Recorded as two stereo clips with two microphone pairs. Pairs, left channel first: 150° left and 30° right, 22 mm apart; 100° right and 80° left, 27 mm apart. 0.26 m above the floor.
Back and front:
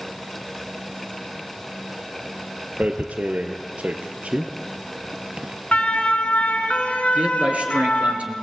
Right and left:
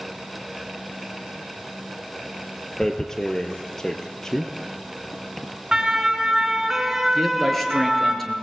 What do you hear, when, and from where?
2.8 s tearing paper: 30° right, 2.5 m
5.7 s a siren: 150° left, 3.5 m; by 8.2 s 170° left, 4 m
7.2 s a man speaking: 20° right, 4 m